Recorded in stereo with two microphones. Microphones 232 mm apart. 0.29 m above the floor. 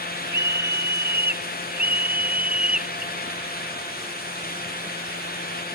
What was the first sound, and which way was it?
A scream, 45° right (ahead or behind).